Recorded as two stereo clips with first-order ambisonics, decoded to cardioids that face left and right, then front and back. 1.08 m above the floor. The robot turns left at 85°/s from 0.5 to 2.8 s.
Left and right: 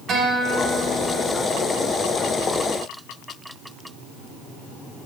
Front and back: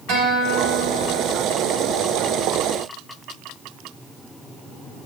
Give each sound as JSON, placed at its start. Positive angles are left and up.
{"t": 0.1, "sound": "a guitar", "azimuth_deg": -150, "distance_m": 3.5}